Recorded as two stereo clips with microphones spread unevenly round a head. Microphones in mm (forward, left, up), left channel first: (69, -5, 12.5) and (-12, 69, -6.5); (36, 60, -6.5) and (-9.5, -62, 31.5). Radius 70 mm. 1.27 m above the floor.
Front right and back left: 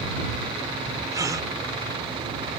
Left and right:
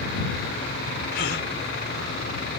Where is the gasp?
75° left.